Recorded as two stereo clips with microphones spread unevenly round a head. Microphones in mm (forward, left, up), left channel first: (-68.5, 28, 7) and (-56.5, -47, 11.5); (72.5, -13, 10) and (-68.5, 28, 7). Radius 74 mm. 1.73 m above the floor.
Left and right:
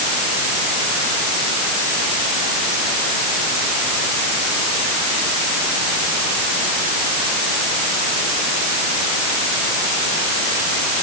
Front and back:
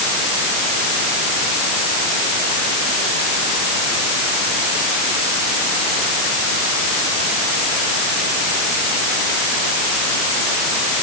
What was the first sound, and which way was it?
Only background noise.